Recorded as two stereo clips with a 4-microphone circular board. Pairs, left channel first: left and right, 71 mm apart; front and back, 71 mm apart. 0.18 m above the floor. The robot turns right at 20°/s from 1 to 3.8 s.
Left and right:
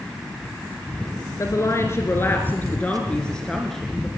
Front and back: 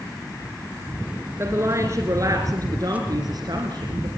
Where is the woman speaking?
130° left, 2 m; by 4.1 s 175° left, 2 m.